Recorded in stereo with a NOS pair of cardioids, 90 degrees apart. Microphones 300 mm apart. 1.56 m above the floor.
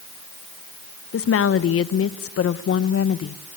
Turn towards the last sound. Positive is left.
turn(degrees=50)